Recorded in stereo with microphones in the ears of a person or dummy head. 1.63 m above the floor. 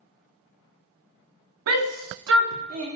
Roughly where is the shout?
Right.